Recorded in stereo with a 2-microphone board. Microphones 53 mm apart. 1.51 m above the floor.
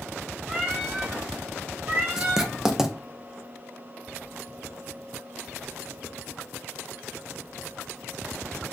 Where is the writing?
10° right (ahead or behind), 0.6 m.